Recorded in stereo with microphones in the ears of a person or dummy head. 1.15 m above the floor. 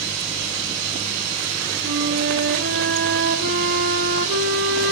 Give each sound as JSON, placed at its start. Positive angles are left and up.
{"t": 1.8, "sound": "a flute", "side_deg": -65, "distance_m": 1.5}